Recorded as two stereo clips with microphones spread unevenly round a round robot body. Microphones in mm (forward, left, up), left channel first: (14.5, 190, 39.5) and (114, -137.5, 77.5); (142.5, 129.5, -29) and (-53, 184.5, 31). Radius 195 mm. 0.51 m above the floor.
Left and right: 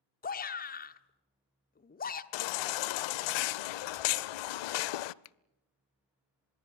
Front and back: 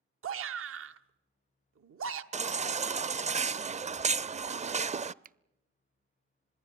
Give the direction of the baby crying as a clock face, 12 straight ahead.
9 o'clock.